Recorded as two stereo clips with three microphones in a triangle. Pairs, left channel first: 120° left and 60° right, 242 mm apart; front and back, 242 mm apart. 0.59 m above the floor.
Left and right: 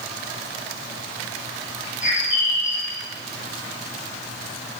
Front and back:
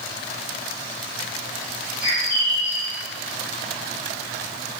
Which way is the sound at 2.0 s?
60° left.